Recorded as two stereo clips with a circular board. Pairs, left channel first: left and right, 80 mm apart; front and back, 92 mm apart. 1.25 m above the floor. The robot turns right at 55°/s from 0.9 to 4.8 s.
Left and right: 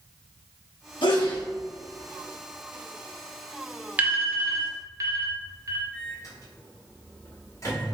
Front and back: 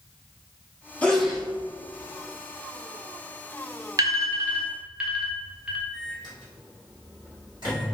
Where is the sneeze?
75° left, 1.0 m; by 1.4 s 100° left, 1.0 m.